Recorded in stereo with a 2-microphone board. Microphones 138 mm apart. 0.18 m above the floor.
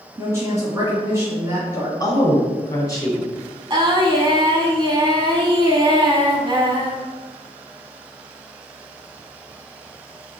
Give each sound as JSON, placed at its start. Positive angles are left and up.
{"t": 0.2, "sound": "a woman speaking", "side_deg": -20, "distance_m": 1.7}
{"t": 2.0, "sound": "a woman speaking", "side_deg": 25, "distance_m": 1.2}
{"t": 3.7, "sound": "singing", "side_deg": -35, "distance_m": 0.7}